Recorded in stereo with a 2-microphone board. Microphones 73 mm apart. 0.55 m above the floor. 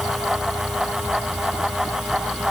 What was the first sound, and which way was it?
Only background noise.